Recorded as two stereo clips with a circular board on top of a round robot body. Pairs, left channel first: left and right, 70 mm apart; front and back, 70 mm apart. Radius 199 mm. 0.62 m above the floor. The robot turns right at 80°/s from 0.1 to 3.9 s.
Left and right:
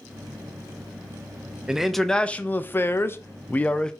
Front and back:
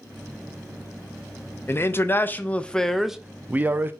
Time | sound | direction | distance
1.7 | a man speaking | 15° right | 0.5 m